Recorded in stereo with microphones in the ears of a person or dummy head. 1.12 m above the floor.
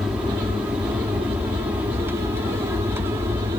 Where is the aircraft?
5° right (ahead or behind); by 3.6 s 15° right (ahead or behind).